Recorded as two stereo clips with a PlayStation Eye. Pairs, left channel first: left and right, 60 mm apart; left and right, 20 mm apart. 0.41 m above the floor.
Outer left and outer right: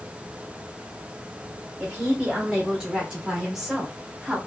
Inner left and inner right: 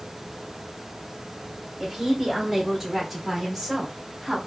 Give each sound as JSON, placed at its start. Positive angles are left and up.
{"t": 1.8, "sound": "a woman speaking", "side_deg": -15, "distance_m": 1.3}